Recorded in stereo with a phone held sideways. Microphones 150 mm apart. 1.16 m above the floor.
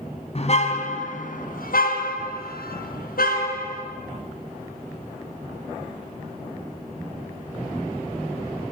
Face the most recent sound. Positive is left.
turn(degrees=75)  # may be behind; listen again after turning